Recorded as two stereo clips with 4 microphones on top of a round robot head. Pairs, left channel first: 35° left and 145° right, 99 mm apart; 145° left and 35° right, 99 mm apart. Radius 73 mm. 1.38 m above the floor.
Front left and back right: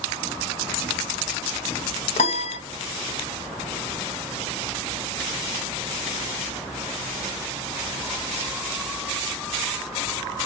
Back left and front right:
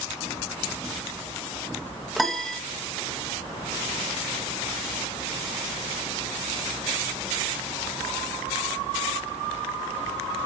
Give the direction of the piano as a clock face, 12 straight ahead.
10 o'clock.